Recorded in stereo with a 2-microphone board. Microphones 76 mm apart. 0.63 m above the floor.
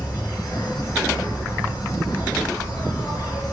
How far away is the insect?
About 0.8 m.